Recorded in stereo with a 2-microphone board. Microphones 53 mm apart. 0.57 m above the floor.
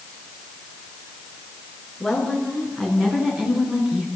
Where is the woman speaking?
15° left (ahead or behind), 8 m; by 4.1 s 10° right (ahead or behind), 6.5 m.